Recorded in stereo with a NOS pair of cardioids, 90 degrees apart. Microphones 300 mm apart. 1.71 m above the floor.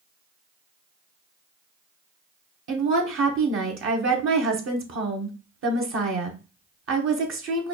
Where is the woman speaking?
45° right, 0.9 m.